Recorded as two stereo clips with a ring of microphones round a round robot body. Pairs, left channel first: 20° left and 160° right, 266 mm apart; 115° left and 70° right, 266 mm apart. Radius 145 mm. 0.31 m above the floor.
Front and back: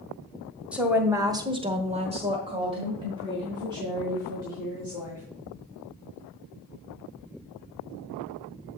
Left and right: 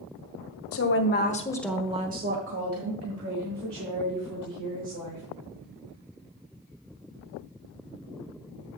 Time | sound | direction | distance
0.7 | a woman speaking | 115° left | 1.9 m